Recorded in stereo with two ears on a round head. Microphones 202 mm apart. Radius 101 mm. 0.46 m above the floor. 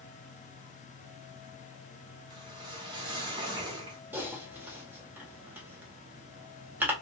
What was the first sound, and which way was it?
A whoosh, 20° right (ahead or behind).